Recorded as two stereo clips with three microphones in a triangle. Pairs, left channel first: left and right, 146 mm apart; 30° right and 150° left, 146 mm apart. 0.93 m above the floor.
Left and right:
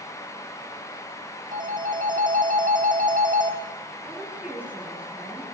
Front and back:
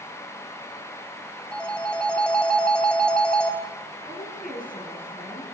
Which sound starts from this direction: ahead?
A woman speaking, at 4.0 s.